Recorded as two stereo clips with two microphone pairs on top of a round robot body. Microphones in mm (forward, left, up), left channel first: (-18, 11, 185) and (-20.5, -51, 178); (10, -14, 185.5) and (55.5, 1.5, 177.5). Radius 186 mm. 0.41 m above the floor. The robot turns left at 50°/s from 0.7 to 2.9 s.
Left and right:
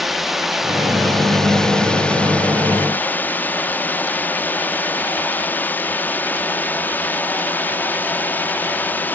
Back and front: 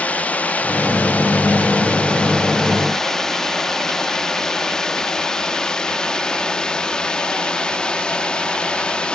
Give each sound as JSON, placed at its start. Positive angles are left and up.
{"t": 0.0, "sound": "a drone", "azimuth_deg": -155}